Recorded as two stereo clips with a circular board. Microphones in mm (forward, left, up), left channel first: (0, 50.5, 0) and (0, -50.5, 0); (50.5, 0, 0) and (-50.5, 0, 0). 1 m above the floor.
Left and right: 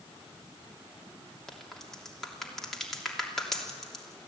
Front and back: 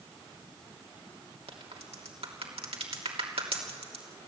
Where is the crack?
175° left, 3 m.